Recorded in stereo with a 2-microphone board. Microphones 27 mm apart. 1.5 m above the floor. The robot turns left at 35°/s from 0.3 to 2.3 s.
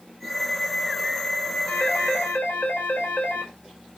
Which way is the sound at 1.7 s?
65° left (ahead or behind).